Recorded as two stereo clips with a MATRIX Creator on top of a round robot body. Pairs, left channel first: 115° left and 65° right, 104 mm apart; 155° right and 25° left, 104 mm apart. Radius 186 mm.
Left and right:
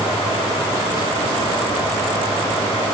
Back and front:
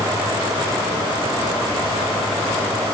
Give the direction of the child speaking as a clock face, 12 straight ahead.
No child speaking in this recording.